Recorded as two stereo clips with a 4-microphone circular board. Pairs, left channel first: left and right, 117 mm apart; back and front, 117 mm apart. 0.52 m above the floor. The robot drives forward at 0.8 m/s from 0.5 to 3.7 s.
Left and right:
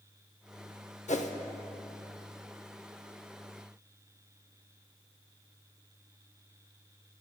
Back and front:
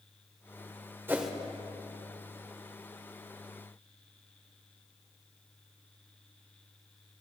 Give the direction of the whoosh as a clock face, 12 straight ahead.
10 o'clock.